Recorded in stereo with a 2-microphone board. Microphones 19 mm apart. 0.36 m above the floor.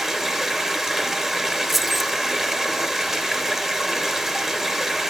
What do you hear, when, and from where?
0.0 s running water: 20° right (ahead or behind), 3 m
1.7 s keys jangling: 5° right (ahead or behind), 0.7 m